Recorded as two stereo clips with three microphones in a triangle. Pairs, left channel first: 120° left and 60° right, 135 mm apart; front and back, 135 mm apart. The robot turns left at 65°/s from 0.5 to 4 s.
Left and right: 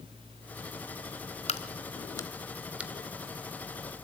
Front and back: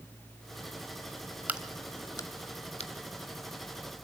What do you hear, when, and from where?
1.5 s a crack: 105° left, 1.1 m; by 4.0 s 60° right, 1.1 m